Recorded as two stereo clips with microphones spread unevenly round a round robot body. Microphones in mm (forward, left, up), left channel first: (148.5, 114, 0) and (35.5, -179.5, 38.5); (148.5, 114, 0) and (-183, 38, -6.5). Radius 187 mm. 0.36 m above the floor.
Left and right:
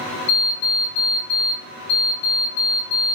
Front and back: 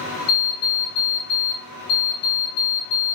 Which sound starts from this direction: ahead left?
An alarm clock, at 0.3 s.